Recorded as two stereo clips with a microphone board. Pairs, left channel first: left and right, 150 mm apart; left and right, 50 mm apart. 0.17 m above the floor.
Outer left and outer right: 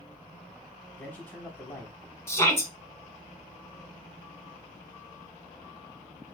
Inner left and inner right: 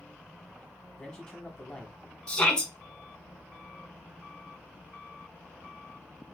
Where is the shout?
20° left (ahead or behind), 1.3 m.